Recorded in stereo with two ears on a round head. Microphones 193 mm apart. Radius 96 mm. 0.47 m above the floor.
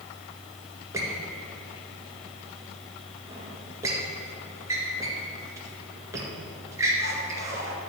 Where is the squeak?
15° right (ahead or behind), 1.7 m.